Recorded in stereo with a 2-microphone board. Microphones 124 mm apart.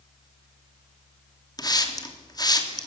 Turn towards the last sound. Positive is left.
turn(degrees=30)  # may be behind; listen again after turning